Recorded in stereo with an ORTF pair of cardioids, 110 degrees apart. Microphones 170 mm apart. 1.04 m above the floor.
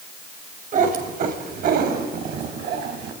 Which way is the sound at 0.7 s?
55° right.